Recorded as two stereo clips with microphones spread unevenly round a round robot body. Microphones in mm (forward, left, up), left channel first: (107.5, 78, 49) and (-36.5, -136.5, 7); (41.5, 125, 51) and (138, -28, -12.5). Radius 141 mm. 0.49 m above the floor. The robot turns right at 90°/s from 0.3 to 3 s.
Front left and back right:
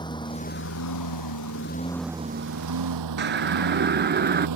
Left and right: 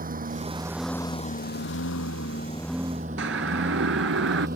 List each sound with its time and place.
0.0 s a lawn mower: 15° right; by 4.6 s 120° right
3.2 s a siren: 75° right; by 4.5 s 70° right